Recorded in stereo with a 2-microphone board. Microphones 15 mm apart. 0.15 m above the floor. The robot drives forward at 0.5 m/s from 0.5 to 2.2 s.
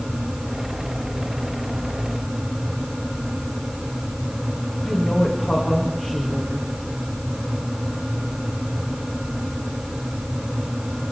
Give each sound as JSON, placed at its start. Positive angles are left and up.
{"t": 4.8, "sound": "a woman speaking", "side_deg": 75, "distance_m": 9.0}